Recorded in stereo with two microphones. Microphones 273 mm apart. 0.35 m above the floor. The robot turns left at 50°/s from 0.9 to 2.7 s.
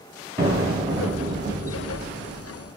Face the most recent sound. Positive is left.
turn(degrees=-125)